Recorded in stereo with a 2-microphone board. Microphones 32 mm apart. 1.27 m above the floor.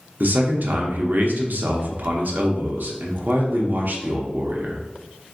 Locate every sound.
0.2 s a man speaking: 65° right (ahead or behind), 0.6 m